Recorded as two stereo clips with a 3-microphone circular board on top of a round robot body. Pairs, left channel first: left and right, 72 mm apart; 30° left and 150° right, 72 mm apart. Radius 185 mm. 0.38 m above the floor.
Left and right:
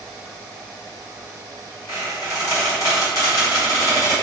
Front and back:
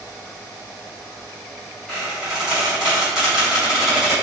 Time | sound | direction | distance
1.9 | a squeak | 130° left | 1.7 m